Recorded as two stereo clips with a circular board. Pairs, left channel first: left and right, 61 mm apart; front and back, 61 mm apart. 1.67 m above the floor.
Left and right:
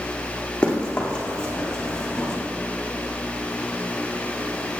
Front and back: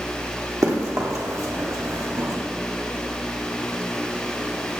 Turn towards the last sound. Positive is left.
turn(degrees=165)